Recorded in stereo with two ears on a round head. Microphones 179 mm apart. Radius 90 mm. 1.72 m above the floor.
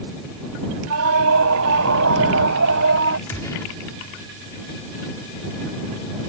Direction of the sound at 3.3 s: 15° left (ahead or behind).